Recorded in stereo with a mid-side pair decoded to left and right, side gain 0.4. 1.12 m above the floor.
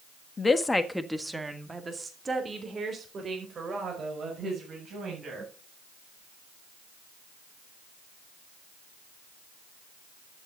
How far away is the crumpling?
I don't hear crumpling.